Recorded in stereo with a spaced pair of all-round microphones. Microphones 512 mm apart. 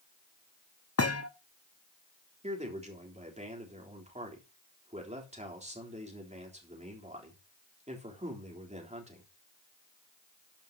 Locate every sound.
1.0 s a thud: 30° left (ahead or behind), 0.8 m
2.4 s a man speaking: 15° right (ahead or behind), 3.5 m